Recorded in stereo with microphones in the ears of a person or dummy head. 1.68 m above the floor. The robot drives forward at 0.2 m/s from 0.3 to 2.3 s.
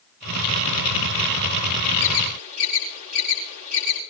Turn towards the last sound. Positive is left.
turn(degrees=-45)  # may be behind; listen again after turning